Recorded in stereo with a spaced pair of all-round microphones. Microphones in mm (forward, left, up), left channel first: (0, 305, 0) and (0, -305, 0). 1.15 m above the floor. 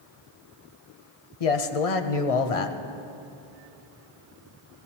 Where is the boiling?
No boiling in this recording.